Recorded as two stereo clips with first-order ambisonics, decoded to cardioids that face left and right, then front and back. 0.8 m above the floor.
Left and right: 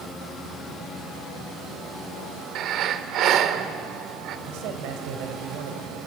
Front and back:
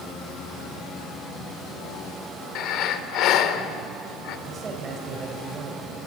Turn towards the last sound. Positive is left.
turn(degrees=-115)